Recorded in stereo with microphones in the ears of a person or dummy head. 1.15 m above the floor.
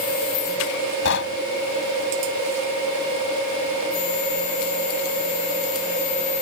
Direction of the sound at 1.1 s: 70° left (ahead or behind).